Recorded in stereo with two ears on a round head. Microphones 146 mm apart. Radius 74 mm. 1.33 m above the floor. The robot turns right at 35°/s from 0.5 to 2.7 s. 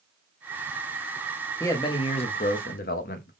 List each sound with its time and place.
1.6 s a man speaking: 15° left, 0.7 m; by 3.3 s 55° left, 0.7 m